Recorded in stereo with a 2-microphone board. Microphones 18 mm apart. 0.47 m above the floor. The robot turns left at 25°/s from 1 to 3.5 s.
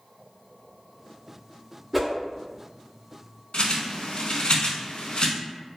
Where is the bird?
65° left (ahead or behind), 0.6 m.